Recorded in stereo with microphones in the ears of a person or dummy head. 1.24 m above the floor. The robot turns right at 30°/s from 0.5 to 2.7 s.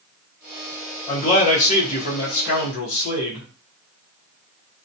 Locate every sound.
1.1 s a man speaking: 40° left, 0.9 m; by 3.5 s 90° left, 0.9 m